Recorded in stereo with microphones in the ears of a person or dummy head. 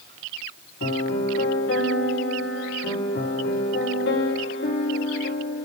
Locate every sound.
0.8 s a piano: 60° left (ahead or behind), 3 m